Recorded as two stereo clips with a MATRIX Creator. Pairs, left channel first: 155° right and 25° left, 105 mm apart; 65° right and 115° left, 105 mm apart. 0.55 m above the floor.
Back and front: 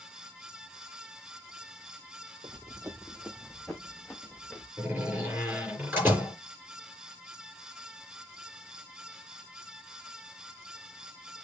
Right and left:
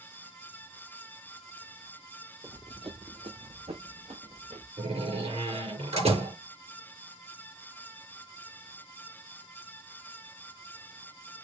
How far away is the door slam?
About 6 m.